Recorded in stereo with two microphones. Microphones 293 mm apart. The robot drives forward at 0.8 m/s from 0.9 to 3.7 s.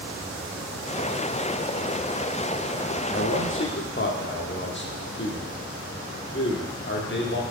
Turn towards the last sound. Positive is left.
turn(degrees=40)  # may be behind; listen again after turning